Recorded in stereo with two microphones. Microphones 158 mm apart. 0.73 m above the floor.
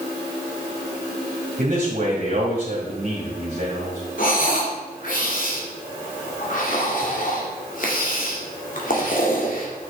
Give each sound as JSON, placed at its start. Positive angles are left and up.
{"t": 1.6, "sound": "a man speaking", "side_deg": -55, "distance_m": 2.5}
{"t": 4.2, "sound": "breathing", "side_deg": 60, "distance_m": 2.5}